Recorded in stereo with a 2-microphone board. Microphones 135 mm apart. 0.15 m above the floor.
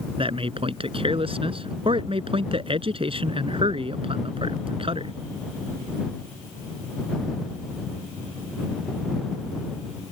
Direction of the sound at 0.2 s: 45° right (ahead or behind).